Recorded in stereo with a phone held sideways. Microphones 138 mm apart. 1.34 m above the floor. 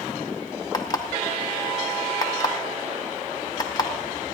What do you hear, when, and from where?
0.7 s an alarm clock: 25° left (ahead or behind), 0.7 m